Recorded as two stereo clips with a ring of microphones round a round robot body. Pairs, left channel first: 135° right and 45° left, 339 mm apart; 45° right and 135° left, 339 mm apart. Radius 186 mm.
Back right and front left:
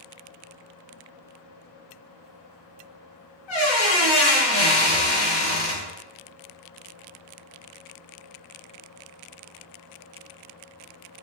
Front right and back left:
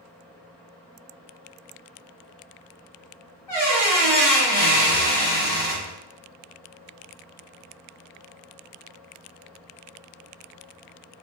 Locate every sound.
3.5 s a squeak: 130° right, 1.4 m